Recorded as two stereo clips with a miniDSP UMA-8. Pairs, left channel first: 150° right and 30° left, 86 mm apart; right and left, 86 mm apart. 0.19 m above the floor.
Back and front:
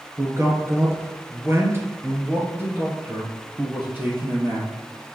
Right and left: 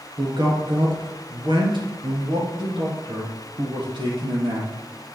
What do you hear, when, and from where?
0.2 s a man speaking: 80° left, 2.5 m; by 4.7 s 100° left, 4.5 m